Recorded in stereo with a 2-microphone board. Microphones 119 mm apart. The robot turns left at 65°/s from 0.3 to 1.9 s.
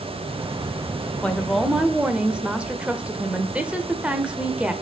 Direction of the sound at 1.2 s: 10° left (ahead or behind).